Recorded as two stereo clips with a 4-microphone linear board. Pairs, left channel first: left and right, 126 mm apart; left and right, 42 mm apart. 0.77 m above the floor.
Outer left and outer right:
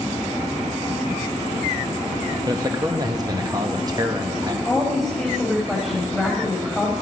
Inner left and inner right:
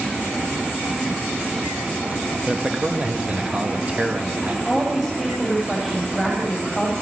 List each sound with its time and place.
2.5 s a man speaking: 30° right (ahead or behind), 1.0 m
4.7 s a woman speaking: centre (ahead or behind), 3 m